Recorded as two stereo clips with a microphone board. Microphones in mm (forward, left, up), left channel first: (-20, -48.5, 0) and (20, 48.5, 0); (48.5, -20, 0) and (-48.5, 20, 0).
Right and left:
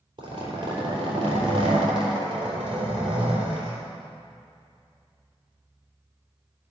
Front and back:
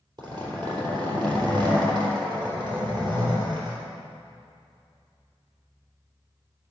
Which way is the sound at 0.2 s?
115° left.